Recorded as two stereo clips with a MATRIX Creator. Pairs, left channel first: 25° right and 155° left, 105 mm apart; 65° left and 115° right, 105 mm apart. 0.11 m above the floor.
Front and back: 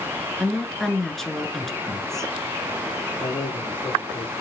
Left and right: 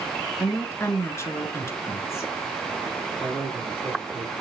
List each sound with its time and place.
0.4 s a woman speaking: 60° left, 1.3 m
3.2 s a man speaking: 40° right, 3 m